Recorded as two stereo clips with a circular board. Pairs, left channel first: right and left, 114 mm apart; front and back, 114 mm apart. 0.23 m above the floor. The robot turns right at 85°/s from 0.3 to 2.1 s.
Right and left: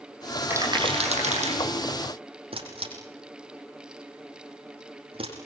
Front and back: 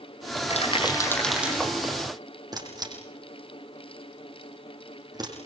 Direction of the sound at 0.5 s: 20° left.